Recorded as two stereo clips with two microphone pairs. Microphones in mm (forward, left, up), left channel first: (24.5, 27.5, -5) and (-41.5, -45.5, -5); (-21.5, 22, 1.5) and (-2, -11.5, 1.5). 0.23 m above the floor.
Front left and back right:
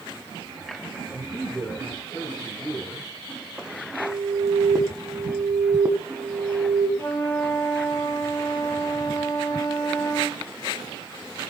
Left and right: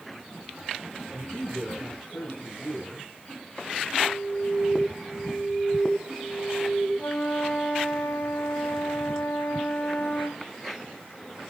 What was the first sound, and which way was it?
A man speaking, 110° left.